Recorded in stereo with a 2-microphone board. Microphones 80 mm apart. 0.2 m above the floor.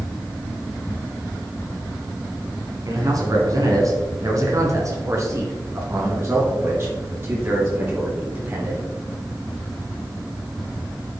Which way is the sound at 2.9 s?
50° right (ahead or behind).